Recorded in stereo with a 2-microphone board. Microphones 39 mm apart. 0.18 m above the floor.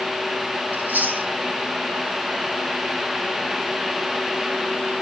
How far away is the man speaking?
I don't hear a man speaking.